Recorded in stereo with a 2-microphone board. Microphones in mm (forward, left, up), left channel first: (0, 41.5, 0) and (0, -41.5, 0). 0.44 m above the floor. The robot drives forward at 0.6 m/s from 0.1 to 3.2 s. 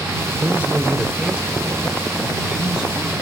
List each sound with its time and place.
0.4 s a man speaking: 20° right (ahead or behind), 1.1 m; by 3.1 s 10° right (ahead or behind), 2.5 m